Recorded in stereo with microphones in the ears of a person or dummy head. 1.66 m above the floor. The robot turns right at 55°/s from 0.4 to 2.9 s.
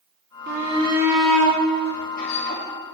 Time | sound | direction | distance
0.5 | a shout | 45° right | 3.5 m